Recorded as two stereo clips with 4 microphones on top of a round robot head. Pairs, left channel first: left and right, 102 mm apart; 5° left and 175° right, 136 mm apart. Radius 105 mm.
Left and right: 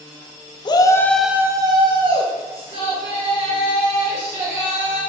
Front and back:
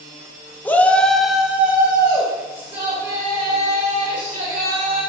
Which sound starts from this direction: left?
A shout, at 0.7 s.